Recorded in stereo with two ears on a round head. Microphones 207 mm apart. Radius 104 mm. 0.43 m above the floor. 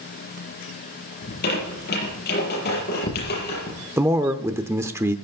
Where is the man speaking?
10° right (ahead or behind), 0.7 m.